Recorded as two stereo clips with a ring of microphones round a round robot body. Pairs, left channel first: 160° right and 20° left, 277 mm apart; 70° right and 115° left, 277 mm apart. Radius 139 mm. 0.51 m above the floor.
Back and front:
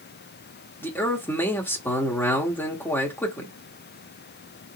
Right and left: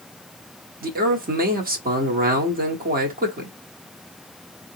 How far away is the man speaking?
About 0.9 m.